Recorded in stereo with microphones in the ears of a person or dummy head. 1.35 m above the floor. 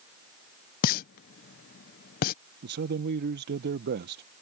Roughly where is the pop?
Left.